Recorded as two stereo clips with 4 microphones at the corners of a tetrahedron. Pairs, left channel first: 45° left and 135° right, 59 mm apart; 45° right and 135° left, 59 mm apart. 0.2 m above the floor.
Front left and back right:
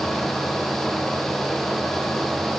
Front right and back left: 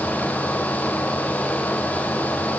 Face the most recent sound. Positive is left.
No sound to turn to.